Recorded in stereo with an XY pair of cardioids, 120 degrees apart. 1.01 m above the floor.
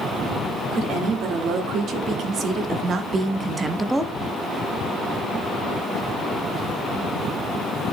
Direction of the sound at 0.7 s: 65° right.